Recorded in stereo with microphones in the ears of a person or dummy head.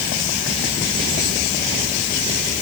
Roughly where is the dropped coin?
I don't hear a dropped coin.